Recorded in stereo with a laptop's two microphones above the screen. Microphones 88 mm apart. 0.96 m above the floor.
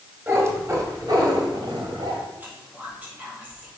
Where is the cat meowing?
30° right (ahead or behind), 2 m; by 2.2 s 75° right (ahead or behind), 1.9 m.